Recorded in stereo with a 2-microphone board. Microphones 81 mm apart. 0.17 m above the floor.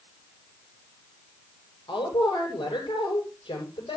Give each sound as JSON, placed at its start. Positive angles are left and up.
{"t": 1.9, "sound": "a woman speaking", "side_deg": 75, "distance_m": 7.5}